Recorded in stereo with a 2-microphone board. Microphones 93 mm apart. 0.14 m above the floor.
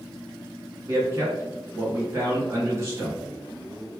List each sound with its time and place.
0.9 s a man speaking: 30° right (ahead or behind), 1.3 m